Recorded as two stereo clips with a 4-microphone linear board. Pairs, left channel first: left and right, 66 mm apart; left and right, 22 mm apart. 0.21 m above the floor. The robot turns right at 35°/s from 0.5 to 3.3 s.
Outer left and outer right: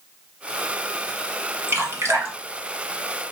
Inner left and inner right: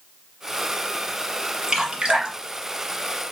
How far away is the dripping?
About 1.2 m.